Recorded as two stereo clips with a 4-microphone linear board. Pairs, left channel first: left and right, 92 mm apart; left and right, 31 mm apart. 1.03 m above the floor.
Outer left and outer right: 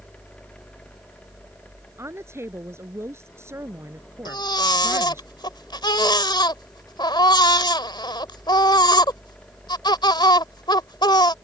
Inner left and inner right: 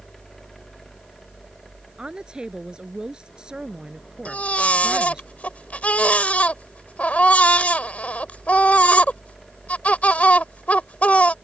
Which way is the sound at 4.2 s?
55° left (ahead or behind).